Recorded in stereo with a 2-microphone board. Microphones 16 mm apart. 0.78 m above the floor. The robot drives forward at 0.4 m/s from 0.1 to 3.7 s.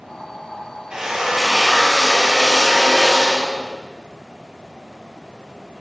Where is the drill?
90° right, 4 m; by 3.8 s 75° right (ahead or behind), 4 m.